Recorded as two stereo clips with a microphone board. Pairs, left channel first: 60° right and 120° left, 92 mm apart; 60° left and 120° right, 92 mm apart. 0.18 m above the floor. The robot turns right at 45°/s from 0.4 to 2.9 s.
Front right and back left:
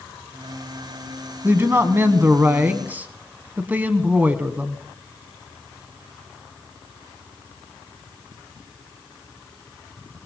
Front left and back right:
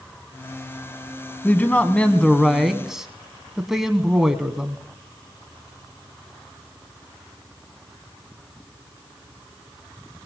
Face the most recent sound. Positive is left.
turn(degrees=160)